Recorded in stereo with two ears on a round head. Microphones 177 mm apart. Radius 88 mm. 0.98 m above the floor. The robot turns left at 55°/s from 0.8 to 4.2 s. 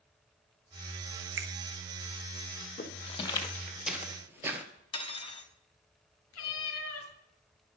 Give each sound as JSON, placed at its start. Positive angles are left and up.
{"t": 1.4, "sound": "a finger snap", "side_deg": -60, "distance_m": 1.0}
{"t": 2.8, "sound": "footsteps", "side_deg": 45, "distance_m": 1.9}
{"t": 4.9, "sound": "cutlery clinking", "side_deg": 25, "distance_m": 0.9}
{"t": 6.3, "sound": "a cat meowing", "side_deg": 80, "distance_m": 2.5}